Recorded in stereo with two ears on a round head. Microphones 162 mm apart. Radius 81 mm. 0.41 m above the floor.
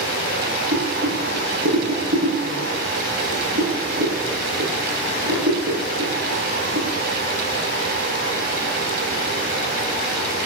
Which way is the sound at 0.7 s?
70° right (ahead or behind).